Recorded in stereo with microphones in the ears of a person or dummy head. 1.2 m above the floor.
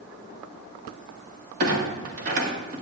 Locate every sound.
1.6 s a clunk: 45° right (ahead or behind), 1.6 m